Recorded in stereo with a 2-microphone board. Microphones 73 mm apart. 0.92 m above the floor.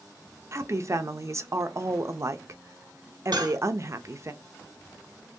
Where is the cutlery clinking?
70° right (ahead or behind), 1.1 m.